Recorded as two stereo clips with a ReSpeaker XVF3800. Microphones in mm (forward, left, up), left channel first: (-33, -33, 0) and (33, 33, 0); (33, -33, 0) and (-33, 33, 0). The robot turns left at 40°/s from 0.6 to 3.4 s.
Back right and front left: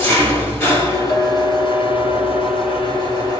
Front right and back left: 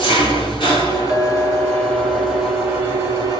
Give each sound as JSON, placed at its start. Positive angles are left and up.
{"t": 0.0, "sound": "an engine running", "azimuth_deg": -70, "distance_m": 2.0}
{"t": 1.1, "sound": "a clink", "azimuth_deg": -150, "distance_m": 1.6}